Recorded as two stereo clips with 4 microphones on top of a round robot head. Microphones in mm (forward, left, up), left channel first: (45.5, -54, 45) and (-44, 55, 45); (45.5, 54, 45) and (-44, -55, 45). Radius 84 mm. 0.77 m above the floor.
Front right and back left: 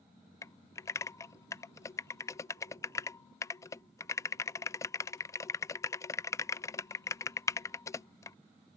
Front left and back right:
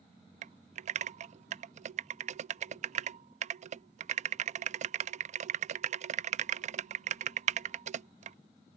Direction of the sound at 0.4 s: 115° right.